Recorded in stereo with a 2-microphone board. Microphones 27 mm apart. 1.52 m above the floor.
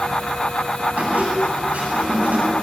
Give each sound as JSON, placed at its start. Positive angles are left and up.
{"t": 1.0, "sound": "a squeak", "side_deg": -60, "distance_m": 9.0}